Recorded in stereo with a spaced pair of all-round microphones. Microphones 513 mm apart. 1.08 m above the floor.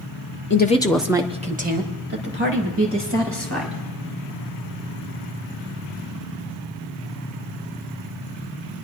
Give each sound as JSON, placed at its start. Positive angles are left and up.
{"t": 0.5, "sound": "a woman speaking", "side_deg": 25, "distance_m": 0.7}